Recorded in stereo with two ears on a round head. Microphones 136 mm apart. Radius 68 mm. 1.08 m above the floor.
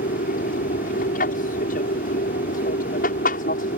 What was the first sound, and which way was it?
An aircraft, 55° left (ahead or behind).